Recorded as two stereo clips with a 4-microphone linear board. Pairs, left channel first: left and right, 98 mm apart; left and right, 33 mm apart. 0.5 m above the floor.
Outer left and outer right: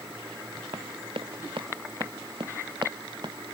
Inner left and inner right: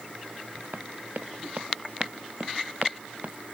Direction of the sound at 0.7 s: 65° right (ahead or behind).